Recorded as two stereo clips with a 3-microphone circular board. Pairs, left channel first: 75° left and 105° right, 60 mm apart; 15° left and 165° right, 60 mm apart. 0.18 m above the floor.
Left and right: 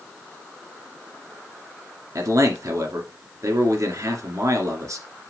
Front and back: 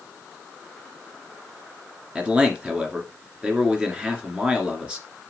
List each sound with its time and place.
2.1 s a man speaking: 95° right, 2 m